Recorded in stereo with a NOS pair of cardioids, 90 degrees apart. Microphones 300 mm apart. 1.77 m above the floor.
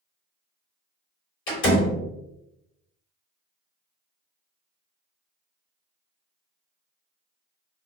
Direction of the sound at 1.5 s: 45° left.